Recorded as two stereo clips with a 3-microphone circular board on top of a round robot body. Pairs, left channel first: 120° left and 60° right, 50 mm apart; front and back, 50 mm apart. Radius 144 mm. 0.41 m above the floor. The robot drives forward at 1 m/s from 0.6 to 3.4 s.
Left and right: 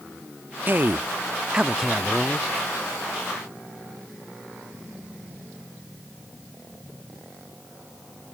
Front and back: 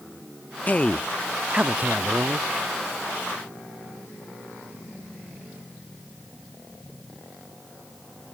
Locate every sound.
0.7 s a man speaking: 40° right; by 2.5 s 160° right